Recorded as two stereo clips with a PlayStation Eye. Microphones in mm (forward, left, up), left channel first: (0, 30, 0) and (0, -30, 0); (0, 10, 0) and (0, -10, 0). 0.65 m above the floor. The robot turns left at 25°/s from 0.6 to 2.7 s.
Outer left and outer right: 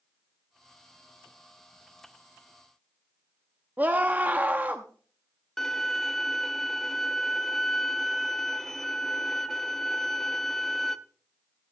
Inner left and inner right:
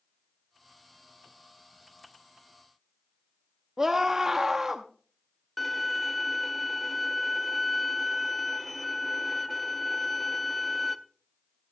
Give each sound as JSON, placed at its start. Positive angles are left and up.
{"t": 3.8, "sound": "a scream", "side_deg": -30, "distance_m": 0.8}
{"t": 5.6, "sound": "a violin", "side_deg": 5, "distance_m": 0.6}